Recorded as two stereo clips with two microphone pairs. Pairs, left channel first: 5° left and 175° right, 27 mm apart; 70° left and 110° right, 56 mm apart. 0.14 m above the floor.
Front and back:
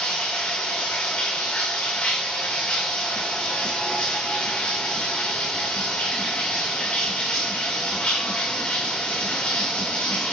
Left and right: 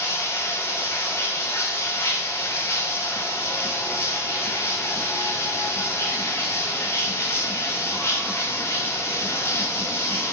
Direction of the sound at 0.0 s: 30° left.